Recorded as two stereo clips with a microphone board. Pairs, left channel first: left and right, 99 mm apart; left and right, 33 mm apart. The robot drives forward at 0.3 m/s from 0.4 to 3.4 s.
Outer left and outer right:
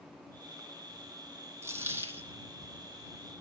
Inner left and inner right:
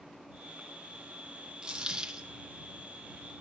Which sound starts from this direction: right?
A dropped coin, at 1.6 s.